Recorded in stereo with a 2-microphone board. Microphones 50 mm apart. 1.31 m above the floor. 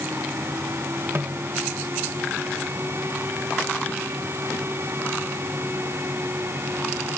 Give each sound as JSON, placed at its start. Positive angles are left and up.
{"t": 1.1, "sound": "a snare drum", "side_deg": -55}